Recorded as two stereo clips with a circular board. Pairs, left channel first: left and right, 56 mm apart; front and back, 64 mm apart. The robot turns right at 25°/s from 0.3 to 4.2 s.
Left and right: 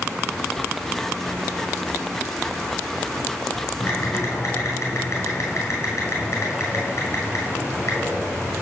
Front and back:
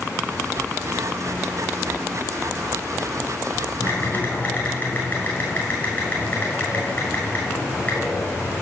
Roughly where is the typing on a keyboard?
Ahead left.